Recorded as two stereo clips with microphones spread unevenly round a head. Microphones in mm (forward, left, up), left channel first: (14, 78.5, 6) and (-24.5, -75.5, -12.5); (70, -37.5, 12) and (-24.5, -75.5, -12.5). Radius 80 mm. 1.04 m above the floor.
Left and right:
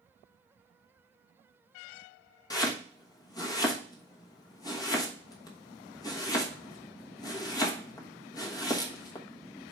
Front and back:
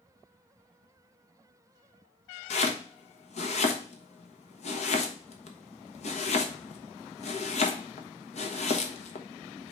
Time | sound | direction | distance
2.5 | chopping | 5° left | 1.2 m